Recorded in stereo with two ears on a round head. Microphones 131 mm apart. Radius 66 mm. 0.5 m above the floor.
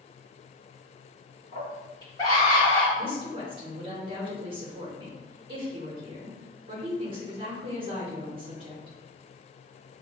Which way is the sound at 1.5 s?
30° left (ahead or behind).